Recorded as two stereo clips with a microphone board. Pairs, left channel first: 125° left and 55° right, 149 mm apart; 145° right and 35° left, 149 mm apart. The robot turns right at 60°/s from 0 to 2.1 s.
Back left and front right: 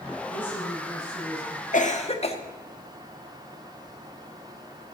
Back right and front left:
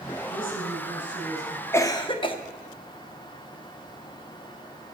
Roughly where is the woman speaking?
Behind.